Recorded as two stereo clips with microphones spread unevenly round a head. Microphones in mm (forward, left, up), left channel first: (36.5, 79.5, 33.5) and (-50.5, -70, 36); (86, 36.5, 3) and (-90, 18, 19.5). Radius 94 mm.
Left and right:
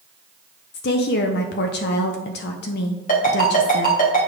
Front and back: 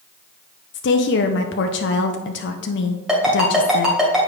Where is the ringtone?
100° left, 2.5 m.